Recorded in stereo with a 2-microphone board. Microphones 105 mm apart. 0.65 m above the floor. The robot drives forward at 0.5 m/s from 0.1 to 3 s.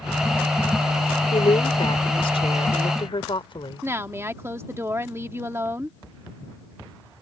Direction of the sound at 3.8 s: 25° right (ahead or behind).